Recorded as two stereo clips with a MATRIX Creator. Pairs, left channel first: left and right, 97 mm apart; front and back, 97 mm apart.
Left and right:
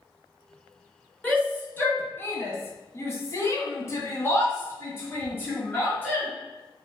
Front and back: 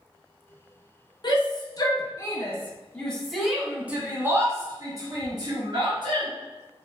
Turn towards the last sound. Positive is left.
turn(degrees=160)